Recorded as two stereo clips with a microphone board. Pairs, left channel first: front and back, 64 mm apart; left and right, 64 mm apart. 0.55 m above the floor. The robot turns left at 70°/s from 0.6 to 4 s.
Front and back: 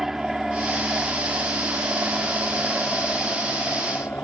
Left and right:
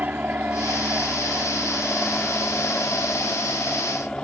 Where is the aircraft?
100° right; by 4.2 s 20° left.